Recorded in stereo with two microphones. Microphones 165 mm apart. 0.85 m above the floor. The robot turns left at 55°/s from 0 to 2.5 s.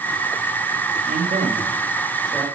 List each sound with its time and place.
1.1 s a man speaking: 60° right (ahead or behind), 1.0 m; by 2.5 s 10° left (ahead or behind), 1.0 m